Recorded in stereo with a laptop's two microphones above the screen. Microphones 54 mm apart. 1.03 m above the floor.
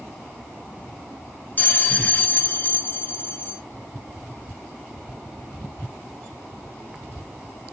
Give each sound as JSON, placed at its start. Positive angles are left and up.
{"t": 1.6, "sound": "a bell", "side_deg": 30, "distance_m": 0.7}